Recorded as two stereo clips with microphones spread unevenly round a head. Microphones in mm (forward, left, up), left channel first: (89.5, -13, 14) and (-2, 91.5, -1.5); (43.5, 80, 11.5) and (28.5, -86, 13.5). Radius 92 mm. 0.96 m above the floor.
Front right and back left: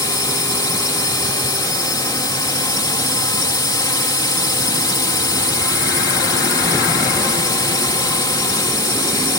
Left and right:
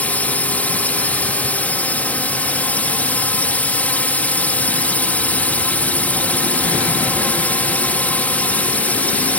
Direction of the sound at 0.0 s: 5° left.